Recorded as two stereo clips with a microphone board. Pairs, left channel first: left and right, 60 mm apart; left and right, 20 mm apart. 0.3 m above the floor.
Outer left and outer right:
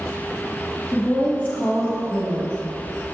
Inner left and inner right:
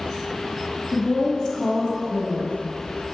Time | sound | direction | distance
0.9 | a woman speaking | 30° left (ahead or behind) | 1.5 m